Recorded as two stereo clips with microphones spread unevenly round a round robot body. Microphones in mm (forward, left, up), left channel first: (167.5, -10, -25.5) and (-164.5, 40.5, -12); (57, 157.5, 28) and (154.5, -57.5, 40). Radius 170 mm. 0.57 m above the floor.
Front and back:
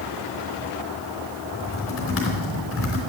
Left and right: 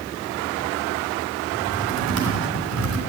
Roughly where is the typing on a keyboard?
Ahead right.